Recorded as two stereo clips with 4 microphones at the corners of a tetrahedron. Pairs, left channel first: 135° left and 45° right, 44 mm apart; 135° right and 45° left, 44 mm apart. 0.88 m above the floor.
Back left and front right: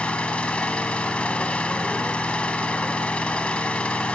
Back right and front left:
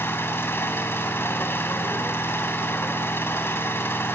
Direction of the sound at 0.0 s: 160° right.